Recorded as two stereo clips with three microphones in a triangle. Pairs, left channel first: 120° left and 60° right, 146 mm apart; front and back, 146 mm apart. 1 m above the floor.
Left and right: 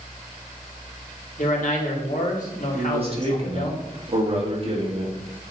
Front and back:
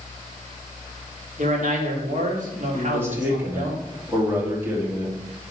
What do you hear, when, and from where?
1.4 s a man speaking: 150° left, 1.9 m
2.7 s a man speaking: 105° right, 2 m